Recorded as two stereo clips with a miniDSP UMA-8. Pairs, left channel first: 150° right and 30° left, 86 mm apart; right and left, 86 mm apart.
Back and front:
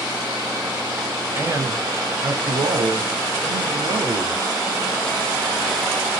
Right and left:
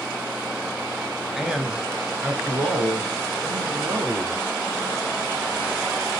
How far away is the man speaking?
About 1.1 m.